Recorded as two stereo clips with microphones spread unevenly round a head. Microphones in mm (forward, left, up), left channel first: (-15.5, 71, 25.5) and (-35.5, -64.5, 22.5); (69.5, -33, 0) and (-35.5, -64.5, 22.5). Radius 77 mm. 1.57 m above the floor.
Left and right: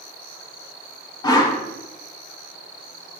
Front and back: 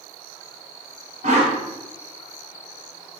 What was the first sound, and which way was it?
A whoosh, 145° left.